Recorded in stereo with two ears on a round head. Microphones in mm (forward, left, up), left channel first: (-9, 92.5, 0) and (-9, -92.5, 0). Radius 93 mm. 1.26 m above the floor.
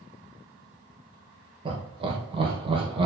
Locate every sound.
1.6 s laughter: 25° right (ahead or behind), 0.8 m